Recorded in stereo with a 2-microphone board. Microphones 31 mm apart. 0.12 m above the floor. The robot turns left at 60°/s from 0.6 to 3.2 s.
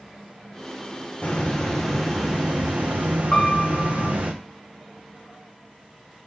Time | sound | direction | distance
1.2 | a hiss | 45° left | 2.5 m
3.3 | a piano | 25° left (ahead or behind) | 3 m